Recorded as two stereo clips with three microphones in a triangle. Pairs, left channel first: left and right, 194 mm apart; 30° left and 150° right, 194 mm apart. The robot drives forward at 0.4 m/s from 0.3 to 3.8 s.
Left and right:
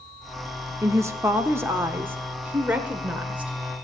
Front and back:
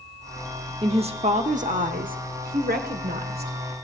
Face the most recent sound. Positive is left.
turn(degrees=-175)